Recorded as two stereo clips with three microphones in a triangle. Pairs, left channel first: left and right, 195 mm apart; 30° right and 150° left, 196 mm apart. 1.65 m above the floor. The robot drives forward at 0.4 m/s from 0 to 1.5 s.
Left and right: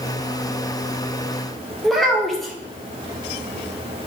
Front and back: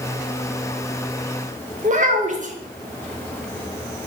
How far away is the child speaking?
About 0.6 m.